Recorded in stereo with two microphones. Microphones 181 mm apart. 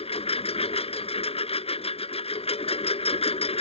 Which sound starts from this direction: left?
A lawn mower, at 0.0 s.